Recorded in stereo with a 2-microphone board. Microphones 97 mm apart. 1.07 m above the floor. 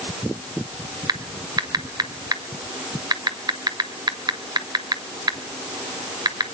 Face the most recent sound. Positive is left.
turn(degrees=-45)  # may be behind; listen again after turning